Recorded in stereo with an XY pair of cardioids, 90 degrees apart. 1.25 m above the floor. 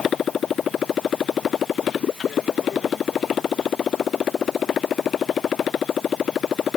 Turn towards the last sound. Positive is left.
turn(degrees=60)